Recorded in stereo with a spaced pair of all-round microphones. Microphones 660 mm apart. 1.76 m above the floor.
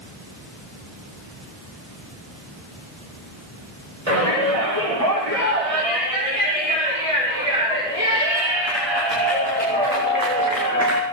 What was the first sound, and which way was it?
A shout, 50° right (ahead or behind).